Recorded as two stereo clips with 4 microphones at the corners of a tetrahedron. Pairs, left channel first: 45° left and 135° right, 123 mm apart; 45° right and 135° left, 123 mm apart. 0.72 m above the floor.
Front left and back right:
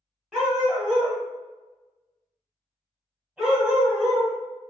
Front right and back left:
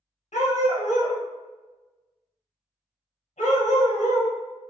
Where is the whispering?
I don't hear whispering.